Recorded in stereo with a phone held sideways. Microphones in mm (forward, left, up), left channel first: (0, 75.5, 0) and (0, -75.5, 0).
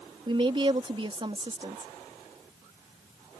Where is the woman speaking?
35° right (ahead or behind).